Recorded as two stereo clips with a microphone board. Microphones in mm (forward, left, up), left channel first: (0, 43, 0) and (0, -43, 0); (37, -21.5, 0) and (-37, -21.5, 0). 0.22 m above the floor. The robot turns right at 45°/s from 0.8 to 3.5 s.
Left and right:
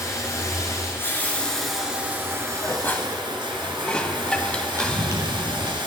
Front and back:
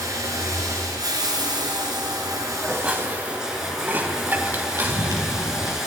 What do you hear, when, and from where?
0.0 s running water: 140° left, 1.8 m; by 5.9 s 100° right, 1.8 m
2.6 s dishes clattering: 120° left, 0.7 m; by 5.2 s 155° left, 0.7 m
4.8 s running footsteps: 140° right, 2.5 m